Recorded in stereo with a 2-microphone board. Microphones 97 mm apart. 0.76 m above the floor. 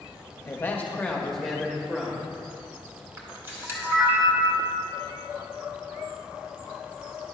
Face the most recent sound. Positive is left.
turn(degrees=-25)  # may be behind; listen again after turning